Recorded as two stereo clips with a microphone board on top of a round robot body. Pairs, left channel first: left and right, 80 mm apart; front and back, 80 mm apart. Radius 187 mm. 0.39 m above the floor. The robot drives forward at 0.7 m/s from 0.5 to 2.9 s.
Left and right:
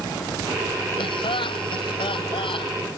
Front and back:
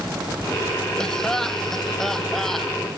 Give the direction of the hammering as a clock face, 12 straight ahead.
I don't hear hammering.